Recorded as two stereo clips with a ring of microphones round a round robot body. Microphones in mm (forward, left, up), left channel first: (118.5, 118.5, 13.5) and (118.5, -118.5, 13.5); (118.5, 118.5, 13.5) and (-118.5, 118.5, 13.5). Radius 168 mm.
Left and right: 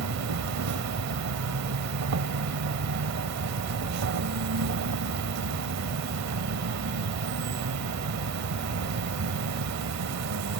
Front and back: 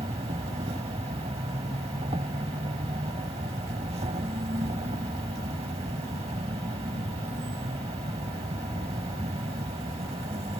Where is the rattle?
I don't hear a rattle.